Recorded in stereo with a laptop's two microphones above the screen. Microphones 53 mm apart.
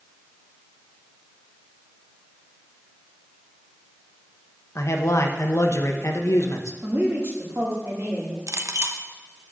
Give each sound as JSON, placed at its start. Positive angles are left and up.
{"t": 4.8, "sound": "a man speaking", "side_deg": 60, "distance_m": 0.8}
{"t": 6.8, "sound": "a woman speaking", "side_deg": -60, "distance_m": 2.0}
{"t": 8.5, "sound": "a clink", "side_deg": -70, "distance_m": 0.6}